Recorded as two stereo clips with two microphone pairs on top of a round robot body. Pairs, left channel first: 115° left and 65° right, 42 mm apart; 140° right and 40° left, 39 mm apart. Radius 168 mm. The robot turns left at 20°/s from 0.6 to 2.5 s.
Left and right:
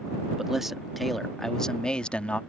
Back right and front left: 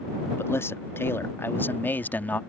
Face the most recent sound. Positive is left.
turn(degrees=170)